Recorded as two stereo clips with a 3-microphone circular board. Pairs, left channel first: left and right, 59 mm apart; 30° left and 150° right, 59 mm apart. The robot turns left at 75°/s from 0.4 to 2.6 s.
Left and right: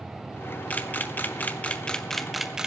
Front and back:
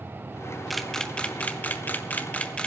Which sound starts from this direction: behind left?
A camera shutter, at 0.7 s.